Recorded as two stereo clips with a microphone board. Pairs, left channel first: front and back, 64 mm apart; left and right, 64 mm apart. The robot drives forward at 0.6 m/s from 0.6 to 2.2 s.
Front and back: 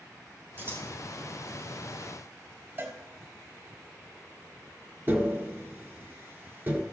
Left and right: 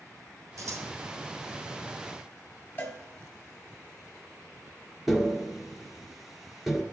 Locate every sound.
0.6 s scissors: 125° right, 1.3 m; by 0.9 s 130° right, 1.4 m
2.8 s a cowbell: 140° left, 1.3 m
5.1 s tapping: 175° right, 1.1 m